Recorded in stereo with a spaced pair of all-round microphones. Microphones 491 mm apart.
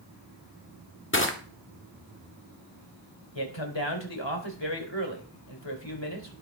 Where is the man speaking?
60° left (ahead or behind), 3.5 m.